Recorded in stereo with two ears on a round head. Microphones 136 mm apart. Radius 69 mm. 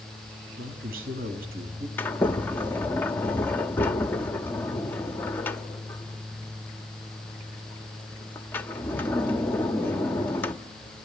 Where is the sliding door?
15° left (ahead or behind), 1.2 m.